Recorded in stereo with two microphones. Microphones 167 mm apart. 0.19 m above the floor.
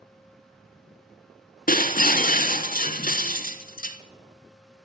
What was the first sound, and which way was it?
Breaking glass, 60° left (ahead or behind).